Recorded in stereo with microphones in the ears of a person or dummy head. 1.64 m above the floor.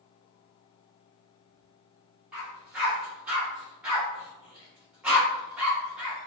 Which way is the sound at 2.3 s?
5° right (ahead or behind).